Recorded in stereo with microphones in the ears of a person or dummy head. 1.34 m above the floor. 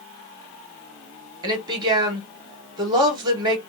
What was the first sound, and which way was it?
A woman speaking, 25° right (ahead or behind).